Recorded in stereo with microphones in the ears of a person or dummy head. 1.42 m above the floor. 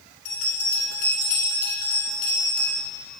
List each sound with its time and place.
0.2 s a bell: 40° left (ahead or behind), 2 m